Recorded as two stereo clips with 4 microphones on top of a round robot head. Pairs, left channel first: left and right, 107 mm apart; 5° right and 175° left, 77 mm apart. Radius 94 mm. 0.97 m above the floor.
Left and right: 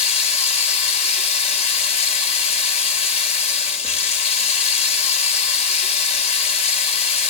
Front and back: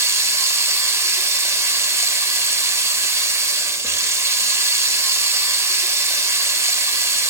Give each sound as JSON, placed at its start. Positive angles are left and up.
{"t": 0.0, "sound": "running water", "azimuth_deg": 120, "distance_m": 1.9}